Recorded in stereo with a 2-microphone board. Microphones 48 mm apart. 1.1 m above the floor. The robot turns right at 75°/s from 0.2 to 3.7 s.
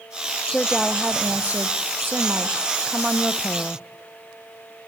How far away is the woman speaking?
About 0.6 m.